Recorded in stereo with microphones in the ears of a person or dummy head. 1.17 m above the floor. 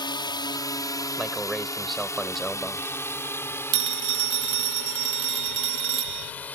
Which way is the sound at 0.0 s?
35° left (ahead or behind).